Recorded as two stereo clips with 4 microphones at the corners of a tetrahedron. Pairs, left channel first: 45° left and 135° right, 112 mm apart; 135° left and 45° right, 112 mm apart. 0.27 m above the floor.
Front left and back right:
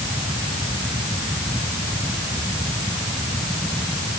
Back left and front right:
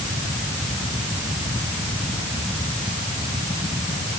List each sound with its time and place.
Only background noise.